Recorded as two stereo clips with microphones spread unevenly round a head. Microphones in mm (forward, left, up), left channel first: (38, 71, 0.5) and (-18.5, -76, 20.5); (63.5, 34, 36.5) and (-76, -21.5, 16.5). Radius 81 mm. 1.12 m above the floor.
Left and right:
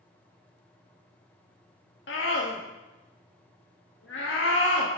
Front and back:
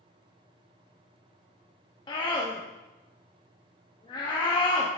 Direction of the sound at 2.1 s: 85° left.